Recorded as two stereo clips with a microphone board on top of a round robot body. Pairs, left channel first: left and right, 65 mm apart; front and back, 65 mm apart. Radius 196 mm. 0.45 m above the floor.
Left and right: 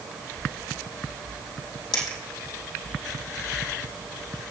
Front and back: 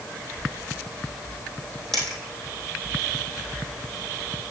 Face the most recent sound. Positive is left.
turn(degrees=80)